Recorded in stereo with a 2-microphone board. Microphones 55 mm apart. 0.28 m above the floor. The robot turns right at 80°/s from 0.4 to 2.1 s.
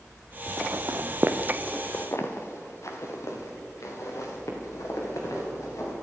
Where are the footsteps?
40° right (ahead or behind), 1.4 m; by 5.9 s 85° left, 5.5 m.